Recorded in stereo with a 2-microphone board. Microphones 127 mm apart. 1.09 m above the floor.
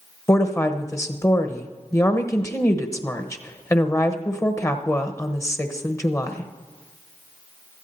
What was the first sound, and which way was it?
A woman speaking, 20° left (ahead or behind).